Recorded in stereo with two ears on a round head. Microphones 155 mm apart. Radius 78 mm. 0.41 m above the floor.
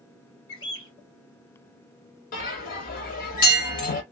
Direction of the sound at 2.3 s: 50° left (ahead or behind).